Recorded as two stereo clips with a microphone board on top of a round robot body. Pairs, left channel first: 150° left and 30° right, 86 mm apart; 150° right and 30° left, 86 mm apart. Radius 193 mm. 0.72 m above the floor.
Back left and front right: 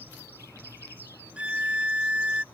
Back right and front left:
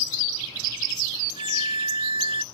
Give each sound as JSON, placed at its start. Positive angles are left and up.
{"t": 1.4, "sound": "a violin", "azimuth_deg": 45}